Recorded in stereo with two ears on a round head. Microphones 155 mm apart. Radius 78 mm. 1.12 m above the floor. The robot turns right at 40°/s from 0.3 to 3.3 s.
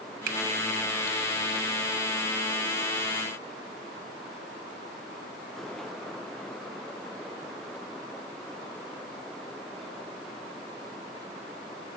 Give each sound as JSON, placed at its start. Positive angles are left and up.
{"t": 0.3, "sound": "a finger snap", "side_deg": -50, "distance_m": 1.4}